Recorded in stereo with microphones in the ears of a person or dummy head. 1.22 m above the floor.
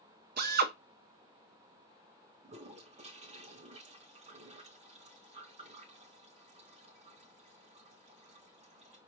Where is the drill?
50° right (ahead or behind), 0.7 m.